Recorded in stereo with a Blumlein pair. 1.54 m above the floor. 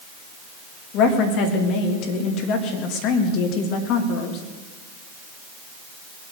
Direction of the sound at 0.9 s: 40° left.